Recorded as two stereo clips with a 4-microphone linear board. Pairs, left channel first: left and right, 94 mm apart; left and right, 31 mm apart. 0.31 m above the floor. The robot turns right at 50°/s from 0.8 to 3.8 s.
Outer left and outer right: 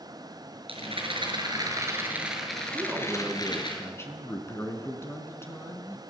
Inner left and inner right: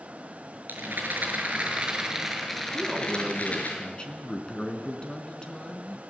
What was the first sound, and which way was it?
A rattle, 85° right.